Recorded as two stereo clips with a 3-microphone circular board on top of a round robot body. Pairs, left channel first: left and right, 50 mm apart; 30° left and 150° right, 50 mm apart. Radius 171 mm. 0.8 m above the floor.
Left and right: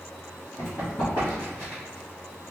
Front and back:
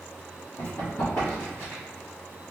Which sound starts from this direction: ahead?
Running footsteps, at 0.6 s.